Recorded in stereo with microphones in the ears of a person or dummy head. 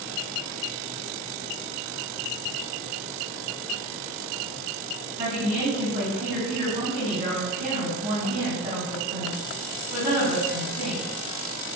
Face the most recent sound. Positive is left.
turn(degrees=-25)  # may be behind; listen again after turning